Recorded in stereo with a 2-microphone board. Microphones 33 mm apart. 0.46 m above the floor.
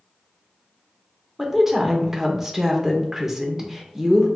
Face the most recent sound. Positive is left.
turn(degrees=-15)  # may be behind; listen again after turning